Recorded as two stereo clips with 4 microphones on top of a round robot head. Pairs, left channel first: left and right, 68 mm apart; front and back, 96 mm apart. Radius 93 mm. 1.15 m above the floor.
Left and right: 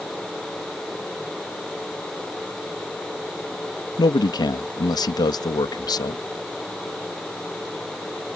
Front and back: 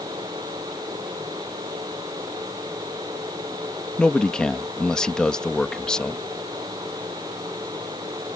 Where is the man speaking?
85° left.